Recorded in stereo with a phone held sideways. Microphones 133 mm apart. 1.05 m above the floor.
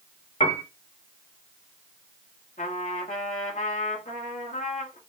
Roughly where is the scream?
I don't hear a scream.